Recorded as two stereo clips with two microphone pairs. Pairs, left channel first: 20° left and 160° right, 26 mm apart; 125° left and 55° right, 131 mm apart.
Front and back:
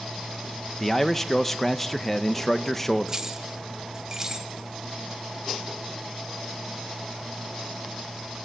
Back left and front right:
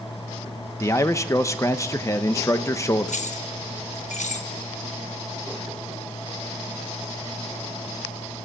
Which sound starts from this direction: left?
A man speaking, at 0.8 s.